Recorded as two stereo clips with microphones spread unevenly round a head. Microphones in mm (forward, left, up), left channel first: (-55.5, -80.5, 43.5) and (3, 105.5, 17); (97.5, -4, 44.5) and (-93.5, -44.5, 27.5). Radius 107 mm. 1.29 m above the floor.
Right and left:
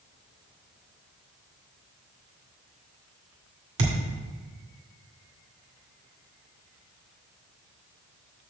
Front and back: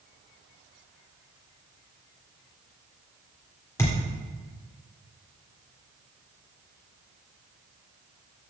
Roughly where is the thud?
Left.